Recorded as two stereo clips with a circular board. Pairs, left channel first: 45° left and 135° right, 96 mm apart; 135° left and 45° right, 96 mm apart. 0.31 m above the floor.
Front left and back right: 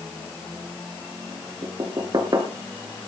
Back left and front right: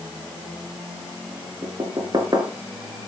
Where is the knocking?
90° right, 3.5 m.